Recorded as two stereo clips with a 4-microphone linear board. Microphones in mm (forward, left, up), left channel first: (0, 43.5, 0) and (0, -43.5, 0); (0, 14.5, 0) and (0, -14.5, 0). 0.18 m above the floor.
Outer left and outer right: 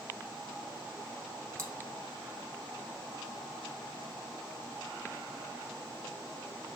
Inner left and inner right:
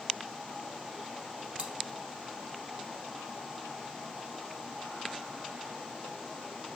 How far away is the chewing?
About 0.7 m.